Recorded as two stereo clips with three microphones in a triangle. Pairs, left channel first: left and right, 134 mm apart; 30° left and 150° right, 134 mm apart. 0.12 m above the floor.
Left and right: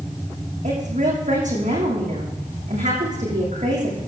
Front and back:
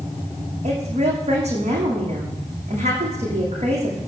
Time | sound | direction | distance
0.6 | a woman speaking | 115° right | 7 m